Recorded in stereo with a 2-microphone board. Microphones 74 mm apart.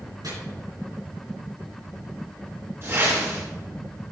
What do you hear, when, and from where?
0.2 s chopping: 70° right (ahead or behind), 3 m
2.8 s a whoosh: 40° right (ahead or behind), 2.5 m